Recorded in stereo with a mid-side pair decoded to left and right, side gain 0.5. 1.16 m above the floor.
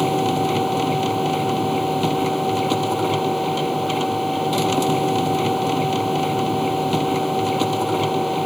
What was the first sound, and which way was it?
A machine running, straight ahead.